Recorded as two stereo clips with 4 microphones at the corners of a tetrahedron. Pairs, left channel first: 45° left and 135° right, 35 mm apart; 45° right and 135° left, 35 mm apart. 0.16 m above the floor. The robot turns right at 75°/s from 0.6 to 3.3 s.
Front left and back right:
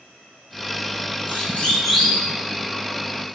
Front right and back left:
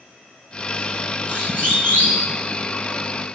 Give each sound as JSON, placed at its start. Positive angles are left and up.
{"t": 1.3, "sound": "a siren", "azimuth_deg": 80, "distance_m": 8.5}